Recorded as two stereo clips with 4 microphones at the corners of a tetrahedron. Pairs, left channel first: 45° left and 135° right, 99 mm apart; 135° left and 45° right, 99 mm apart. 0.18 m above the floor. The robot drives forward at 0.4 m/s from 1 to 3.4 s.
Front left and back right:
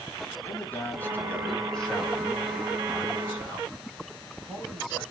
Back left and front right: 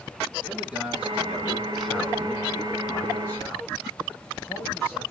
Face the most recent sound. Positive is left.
turn(degrees=175)